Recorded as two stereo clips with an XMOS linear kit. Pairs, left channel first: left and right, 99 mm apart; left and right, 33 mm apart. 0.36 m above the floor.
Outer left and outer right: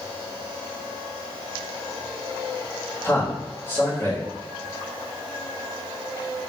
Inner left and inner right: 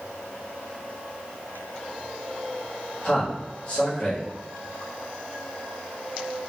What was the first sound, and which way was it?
A man speaking, 25° left (ahead or behind).